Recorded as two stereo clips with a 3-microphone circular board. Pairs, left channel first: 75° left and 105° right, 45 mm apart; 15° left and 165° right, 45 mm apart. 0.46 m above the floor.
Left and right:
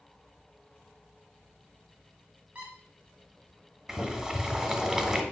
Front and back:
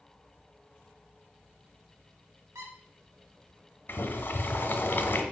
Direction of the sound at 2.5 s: 170° right.